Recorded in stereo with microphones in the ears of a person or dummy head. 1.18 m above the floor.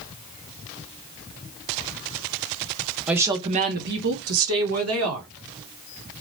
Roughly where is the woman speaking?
Centre.